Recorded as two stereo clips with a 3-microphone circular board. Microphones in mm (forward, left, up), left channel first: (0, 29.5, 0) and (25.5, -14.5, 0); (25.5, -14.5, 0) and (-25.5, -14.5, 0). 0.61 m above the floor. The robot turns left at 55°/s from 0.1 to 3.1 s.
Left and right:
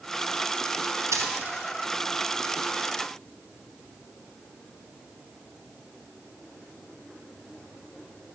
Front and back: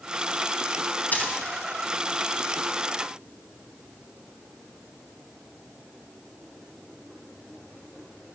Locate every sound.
1.1 s a dropped coin: 55° right, 1.8 m; by 1.3 s 65° right, 1.8 m